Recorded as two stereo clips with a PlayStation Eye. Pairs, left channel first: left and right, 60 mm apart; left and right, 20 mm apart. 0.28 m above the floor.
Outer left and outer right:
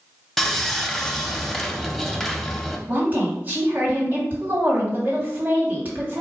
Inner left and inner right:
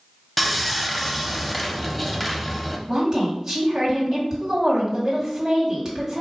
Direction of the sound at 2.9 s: 30° right (ahead or behind).